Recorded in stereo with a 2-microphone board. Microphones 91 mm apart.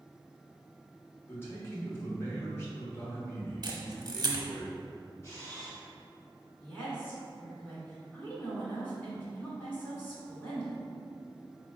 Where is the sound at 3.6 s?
50° right (ahead or behind), 0.7 m.